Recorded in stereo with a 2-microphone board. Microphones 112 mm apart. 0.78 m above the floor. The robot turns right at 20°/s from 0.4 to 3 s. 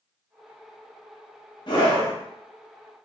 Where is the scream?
40° left (ahead or behind), 0.9 m.